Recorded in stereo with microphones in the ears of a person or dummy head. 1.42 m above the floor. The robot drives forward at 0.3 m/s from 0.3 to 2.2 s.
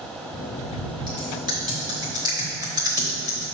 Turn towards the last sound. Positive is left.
turn(degrees=-10)  # may be behind; listen again after turning